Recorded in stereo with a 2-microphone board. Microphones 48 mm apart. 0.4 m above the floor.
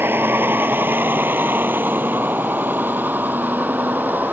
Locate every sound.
0.0 s a vehicle: 50° right (ahead or behind); by 4.3 s 40° right (ahead or behind)